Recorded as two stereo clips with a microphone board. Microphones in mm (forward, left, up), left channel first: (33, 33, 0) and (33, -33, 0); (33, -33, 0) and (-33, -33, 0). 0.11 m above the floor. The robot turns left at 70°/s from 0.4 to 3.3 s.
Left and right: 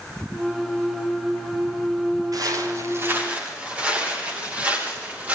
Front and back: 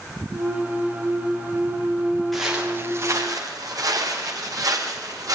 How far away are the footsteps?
About 6 m.